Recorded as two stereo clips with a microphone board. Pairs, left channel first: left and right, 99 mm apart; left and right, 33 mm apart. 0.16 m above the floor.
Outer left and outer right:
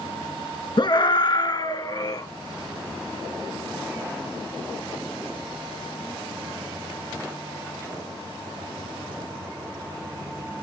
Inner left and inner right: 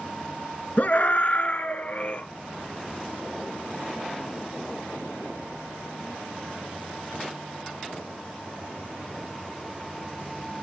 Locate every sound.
0.8 s a scream: 50° left (ahead or behind), 2 m; by 2.2 s 40° left (ahead or behind), 3 m